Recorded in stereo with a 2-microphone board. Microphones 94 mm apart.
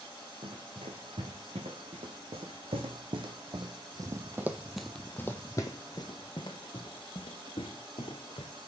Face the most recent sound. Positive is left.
turn(degrees=70)  # may be behind; listen again after turning